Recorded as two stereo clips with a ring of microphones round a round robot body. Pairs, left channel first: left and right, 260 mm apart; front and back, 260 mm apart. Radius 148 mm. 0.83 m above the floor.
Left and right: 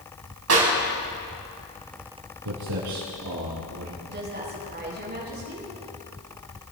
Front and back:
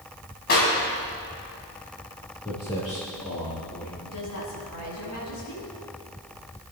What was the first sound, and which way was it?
A clap, 60° right.